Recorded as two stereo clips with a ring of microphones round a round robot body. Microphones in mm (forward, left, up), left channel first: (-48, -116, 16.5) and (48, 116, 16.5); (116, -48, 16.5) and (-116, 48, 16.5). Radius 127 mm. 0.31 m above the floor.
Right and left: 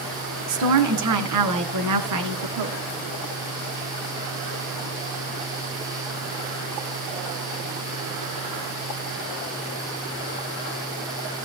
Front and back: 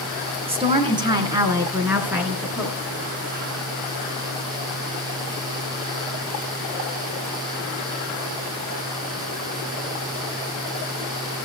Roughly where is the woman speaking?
Left.